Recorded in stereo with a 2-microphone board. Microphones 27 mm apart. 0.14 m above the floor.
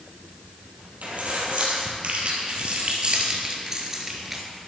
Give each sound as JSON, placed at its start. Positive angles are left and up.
{"t": 1.0, "sound": "keys jangling", "side_deg": -60, "distance_m": 3.0}